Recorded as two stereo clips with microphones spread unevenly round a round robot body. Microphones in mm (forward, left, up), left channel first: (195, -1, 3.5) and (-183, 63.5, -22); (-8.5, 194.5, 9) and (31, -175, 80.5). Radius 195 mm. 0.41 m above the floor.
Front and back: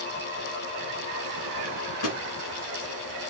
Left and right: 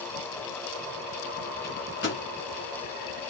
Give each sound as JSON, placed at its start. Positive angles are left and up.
{"t": 1.6, "sound": "a microwave", "azimuth_deg": 35, "distance_m": 3.5}